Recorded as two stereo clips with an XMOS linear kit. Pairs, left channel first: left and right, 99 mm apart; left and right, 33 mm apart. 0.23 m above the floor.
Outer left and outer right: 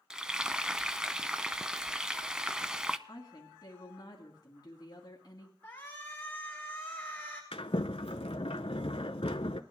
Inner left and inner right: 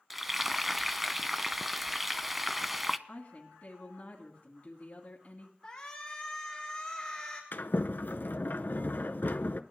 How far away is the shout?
About 3 m.